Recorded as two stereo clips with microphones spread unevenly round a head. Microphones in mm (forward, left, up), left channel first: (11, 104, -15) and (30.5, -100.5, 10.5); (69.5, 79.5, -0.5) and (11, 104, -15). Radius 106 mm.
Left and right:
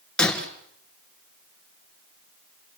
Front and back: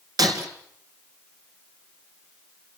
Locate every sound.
0.2 s breaking glass: 175° right, 2.5 m